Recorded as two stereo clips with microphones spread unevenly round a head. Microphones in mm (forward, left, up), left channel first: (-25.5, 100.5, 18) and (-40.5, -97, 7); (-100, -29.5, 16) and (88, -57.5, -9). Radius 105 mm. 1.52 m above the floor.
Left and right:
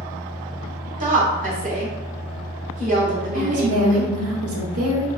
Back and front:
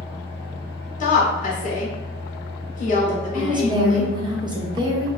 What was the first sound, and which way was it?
A fan, 165° right.